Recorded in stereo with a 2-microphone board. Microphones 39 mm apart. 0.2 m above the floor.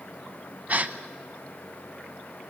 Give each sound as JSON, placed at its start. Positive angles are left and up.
{"t": 0.7, "sound": "a gasp", "side_deg": -40, "distance_m": 0.9}